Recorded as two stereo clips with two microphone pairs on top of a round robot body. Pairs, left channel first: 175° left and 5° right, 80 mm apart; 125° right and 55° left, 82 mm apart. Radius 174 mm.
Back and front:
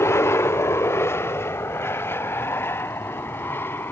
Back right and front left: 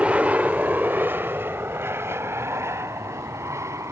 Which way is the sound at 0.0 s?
135° left.